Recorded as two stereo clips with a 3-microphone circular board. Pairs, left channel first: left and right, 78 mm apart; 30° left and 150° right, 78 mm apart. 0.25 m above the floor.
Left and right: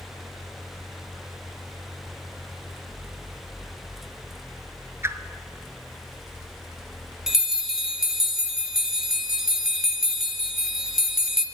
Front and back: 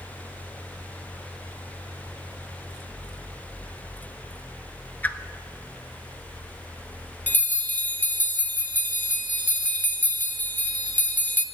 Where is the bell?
15° right, 0.7 m.